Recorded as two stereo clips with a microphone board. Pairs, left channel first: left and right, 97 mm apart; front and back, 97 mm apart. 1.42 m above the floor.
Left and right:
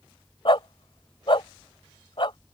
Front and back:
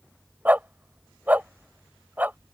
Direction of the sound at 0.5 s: 110° left.